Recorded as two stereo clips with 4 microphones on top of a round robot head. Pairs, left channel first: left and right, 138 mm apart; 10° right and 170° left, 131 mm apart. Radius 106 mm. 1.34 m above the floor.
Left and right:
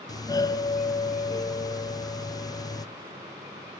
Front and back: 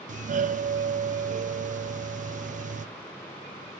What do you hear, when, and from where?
0.1 s a doorbell: 155° left, 0.6 m